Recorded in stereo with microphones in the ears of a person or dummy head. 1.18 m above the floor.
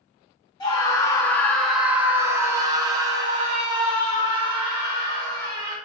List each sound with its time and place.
0.6 s a scream: 20° left (ahead or behind), 0.8 m; by 5.8 s 30° right (ahead or behind), 2 m